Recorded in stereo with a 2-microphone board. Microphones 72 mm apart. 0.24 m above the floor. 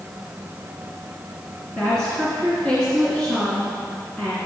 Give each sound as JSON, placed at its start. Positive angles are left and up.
{"t": 1.8, "sound": "a woman speaking", "side_deg": 15, "distance_m": 2.5}